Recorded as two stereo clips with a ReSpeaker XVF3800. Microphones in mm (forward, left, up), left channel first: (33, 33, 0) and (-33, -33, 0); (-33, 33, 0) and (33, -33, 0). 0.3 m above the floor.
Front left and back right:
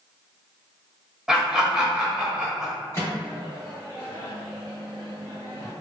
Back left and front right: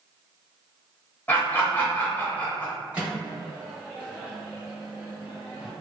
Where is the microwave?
20° left, 1.4 m.